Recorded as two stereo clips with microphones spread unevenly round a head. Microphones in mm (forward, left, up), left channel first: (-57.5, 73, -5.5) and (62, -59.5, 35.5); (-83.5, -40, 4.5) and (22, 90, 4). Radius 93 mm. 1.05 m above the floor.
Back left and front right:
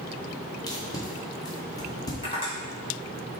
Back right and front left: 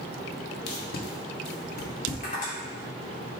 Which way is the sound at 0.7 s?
155° right.